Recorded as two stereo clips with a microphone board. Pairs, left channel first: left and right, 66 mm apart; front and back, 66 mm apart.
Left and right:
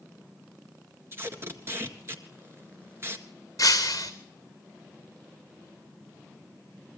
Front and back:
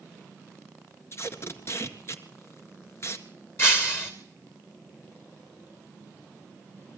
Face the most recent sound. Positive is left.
turn(degrees=55)